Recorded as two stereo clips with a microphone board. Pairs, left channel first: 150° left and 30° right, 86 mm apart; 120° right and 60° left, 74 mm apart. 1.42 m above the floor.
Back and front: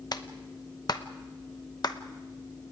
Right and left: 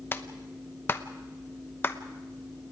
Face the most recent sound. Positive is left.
turn(degrees=-175)